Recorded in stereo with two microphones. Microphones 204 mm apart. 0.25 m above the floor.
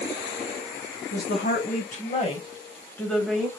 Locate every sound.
1.1 s a woman speaking: 50° left (ahead or behind), 1.5 m; by 3.5 s 10° right (ahead or behind), 1.0 m